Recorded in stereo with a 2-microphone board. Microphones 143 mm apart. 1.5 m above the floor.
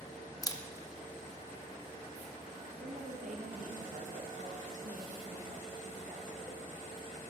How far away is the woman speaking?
About 2.0 m.